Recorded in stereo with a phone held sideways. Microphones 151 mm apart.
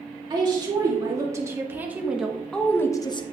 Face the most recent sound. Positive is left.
turn(degrees=35)  # may be behind; listen again after turning